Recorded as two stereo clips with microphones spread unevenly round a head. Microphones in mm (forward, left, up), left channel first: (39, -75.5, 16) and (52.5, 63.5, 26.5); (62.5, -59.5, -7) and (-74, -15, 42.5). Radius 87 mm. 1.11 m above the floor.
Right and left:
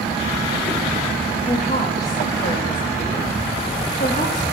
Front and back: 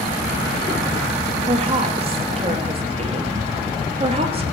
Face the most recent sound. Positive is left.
turn(degrees=-145)